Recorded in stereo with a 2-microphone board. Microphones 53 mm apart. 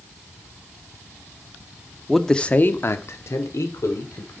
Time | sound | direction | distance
2.1 | a man speaking | centre (ahead or behind) | 0.9 m